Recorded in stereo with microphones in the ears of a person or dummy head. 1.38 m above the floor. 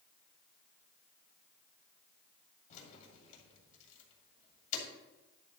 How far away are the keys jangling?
About 2.0 m.